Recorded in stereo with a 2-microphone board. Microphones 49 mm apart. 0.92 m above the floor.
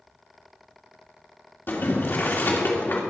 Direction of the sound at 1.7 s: 45° left (ahead or behind).